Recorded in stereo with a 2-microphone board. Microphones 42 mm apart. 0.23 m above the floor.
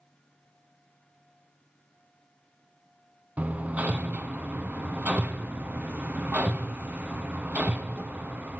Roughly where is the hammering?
Right.